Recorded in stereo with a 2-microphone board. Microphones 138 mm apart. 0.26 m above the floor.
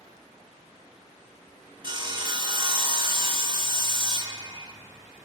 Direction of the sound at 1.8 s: 35° right (ahead or behind).